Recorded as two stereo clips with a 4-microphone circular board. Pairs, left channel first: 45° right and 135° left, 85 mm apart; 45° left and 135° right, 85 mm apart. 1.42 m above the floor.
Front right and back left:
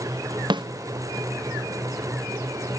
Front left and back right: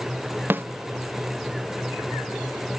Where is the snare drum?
160° left, 0.8 m.